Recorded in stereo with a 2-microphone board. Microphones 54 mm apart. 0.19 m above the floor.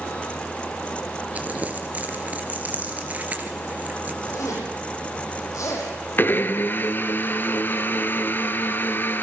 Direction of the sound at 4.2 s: 75° left (ahead or behind).